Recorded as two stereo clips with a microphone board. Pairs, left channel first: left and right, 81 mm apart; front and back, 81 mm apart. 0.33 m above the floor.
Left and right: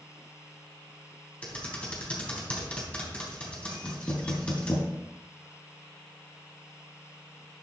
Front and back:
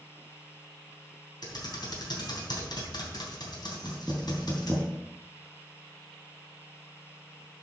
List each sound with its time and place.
1.4 s typing on a keyboard: 15° left, 3 m
3.8 s knocking: 100° left, 4.5 m